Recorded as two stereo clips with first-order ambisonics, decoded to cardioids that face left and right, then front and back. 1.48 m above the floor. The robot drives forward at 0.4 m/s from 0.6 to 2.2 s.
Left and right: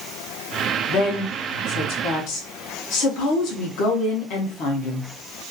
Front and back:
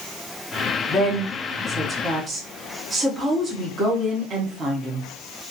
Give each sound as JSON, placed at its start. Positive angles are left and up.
{"t": 0.9, "sound": "a woman speaking", "azimuth_deg": 60, "distance_m": 0.7}